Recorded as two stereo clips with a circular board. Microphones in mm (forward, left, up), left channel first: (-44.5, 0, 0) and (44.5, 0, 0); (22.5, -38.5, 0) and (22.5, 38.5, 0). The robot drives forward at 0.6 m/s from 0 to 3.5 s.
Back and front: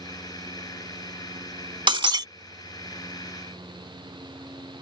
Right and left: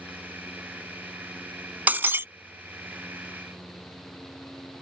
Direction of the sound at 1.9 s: 20° left.